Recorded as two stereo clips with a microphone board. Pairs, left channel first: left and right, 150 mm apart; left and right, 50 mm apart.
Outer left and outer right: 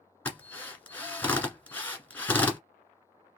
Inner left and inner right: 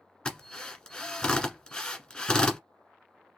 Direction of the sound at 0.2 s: 15° left (ahead or behind).